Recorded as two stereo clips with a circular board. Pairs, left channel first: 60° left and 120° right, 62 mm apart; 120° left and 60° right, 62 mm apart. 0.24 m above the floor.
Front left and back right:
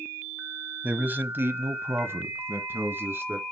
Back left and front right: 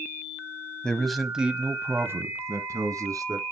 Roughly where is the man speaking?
Behind.